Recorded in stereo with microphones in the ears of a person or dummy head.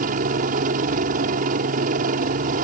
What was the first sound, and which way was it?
A helicopter, 45° right (ahead or behind).